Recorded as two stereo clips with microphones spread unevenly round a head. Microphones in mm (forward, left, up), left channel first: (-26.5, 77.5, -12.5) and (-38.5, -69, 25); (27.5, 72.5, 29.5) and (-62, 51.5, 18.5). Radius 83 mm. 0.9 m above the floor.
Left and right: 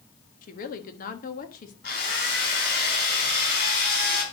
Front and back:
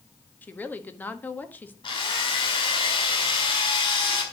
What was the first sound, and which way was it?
A woman speaking, 85° left.